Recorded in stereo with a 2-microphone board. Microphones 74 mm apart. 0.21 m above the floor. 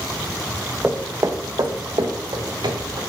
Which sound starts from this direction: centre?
Footsteps, at 0.8 s.